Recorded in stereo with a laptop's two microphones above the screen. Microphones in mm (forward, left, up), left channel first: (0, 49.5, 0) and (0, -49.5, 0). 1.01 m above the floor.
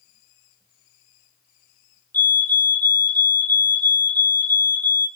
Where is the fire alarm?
20° left (ahead or behind), 1.3 m.